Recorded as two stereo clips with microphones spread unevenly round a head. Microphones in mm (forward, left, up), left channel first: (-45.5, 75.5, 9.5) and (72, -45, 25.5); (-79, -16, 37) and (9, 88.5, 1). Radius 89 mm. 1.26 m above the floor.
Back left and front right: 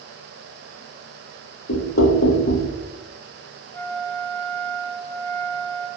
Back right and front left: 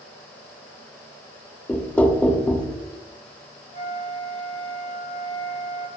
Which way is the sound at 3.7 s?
150° right.